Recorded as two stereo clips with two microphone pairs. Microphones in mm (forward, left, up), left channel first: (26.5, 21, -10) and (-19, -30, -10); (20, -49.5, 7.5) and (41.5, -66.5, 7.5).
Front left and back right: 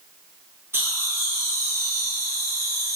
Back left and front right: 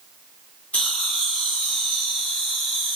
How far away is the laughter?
About 3 m.